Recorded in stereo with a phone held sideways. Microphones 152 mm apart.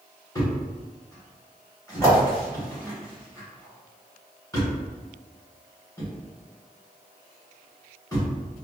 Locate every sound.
0.3 s a thud: 20° left (ahead or behind), 1.5 m